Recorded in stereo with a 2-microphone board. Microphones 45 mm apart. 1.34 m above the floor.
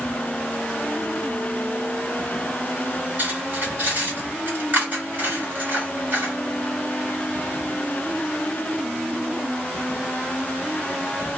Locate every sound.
3.2 s cutlery clinking: 45° right (ahead or behind), 1.7 m